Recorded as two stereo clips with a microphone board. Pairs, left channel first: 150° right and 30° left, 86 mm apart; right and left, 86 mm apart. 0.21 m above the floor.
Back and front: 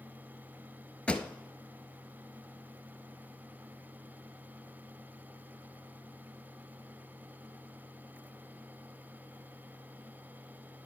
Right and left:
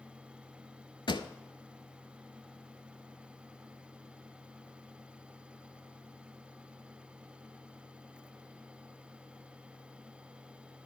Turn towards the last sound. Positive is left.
turn(degrees=-75)